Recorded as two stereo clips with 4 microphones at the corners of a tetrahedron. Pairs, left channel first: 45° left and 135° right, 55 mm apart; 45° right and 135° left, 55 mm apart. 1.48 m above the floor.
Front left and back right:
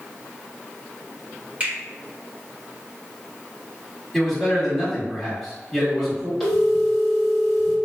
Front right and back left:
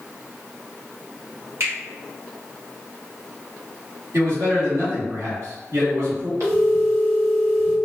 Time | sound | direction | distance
1.6 | a finger snap | 165° left | 1.3 m
4.1 | a man speaking | 135° left | 1.6 m
6.4 | a phone ringing | 135° left | 1.6 m